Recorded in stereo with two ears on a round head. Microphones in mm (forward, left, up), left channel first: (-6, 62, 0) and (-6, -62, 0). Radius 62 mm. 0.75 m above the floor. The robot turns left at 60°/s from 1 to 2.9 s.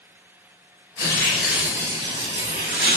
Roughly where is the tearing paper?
Ahead left.